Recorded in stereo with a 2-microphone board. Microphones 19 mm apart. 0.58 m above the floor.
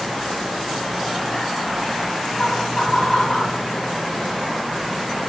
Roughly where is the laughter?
Left.